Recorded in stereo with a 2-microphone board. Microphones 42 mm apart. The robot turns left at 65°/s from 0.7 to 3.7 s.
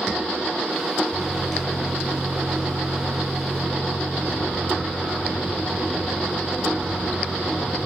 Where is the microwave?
25° left, 3 m; by 7.9 s 140° right, 3 m.